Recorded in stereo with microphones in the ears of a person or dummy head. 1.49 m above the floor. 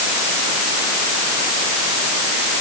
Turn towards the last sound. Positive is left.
No sound to turn to.